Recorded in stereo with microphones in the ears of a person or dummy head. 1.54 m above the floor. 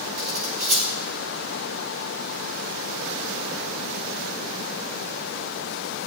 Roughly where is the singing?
No singing in this recording.